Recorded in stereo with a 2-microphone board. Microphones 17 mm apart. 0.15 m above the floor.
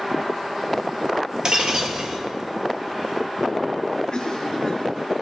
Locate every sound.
1.4 s breaking glass: 45° right (ahead or behind), 1.5 m
4.1 s a cough: 50° left (ahead or behind), 2 m